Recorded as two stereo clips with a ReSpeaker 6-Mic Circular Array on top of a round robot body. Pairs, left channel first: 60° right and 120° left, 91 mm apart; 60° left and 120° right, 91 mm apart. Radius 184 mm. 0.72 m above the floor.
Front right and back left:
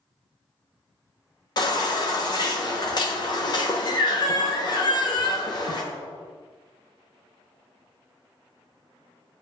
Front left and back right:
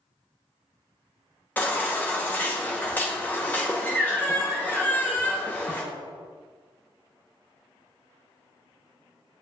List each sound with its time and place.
1.6 s a baby crying: 15° right, 1.0 m